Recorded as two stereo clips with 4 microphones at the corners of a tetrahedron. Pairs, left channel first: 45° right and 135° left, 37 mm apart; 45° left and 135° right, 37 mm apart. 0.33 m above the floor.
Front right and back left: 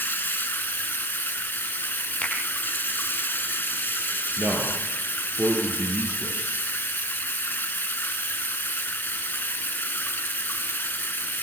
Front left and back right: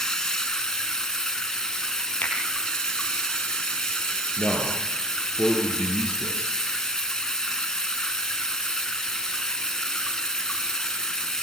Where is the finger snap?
5° left, 7.5 m.